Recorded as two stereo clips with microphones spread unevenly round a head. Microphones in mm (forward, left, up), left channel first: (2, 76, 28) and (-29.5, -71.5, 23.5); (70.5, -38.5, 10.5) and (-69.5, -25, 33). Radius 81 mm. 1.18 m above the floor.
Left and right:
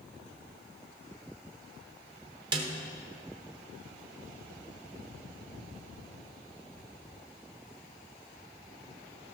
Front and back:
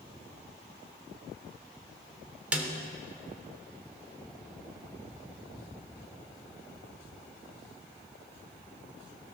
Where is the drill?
I don't hear a drill.